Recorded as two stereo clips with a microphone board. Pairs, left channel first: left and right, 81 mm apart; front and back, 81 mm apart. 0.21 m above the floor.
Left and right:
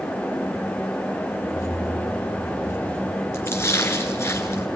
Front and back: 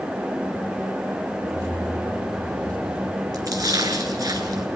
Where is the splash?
145° left, 2.5 m.